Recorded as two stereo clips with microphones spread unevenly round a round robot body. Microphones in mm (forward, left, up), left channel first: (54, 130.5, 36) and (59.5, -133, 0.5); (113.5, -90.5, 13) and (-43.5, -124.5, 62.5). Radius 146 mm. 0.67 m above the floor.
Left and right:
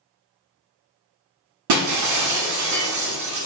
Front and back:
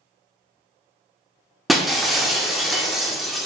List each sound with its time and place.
1.7 s breaking glass: 75° right, 0.9 m